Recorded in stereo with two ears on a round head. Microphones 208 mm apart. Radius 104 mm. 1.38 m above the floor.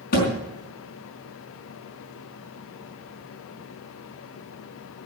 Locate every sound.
0.1 s a thud: 40° left (ahead or behind), 4.5 m